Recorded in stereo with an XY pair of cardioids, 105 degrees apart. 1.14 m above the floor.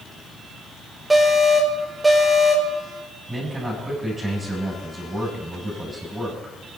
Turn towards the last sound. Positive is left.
turn(degrees=-20)